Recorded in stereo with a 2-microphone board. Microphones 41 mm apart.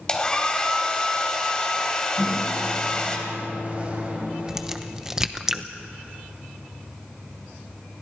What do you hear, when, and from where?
0.1 s a hair dryer: 20° left (ahead or behind), 3 m
2.2 s a microwave: 35° right (ahead or behind), 5.5 m
4.5 s a crack: 15° right (ahead or behind), 0.9 m